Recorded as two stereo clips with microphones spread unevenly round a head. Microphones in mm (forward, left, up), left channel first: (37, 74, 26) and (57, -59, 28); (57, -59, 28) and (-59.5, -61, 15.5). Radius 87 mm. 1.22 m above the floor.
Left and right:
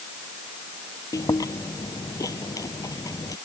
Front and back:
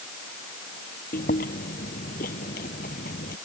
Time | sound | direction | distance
1.1 | chewing | 35° left | ?